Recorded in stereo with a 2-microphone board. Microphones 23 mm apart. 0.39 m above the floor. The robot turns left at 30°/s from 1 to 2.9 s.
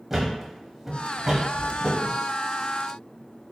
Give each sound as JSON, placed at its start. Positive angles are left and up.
{"t": 0.1, "sound": "a thud", "side_deg": -15, "distance_m": 0.9}